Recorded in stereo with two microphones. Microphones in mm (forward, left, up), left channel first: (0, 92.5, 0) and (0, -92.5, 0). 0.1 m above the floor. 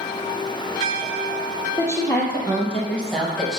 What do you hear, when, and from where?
1.8 s a woman speaking: 15° left (ahead or behind), 3 m; by 3.6 s centre (ahead or behind), 2 m